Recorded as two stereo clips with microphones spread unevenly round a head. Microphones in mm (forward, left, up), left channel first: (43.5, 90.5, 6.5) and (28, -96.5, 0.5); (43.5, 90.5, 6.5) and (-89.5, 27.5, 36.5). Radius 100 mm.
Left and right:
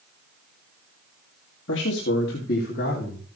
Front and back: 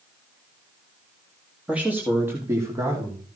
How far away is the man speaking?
About 2.5 m.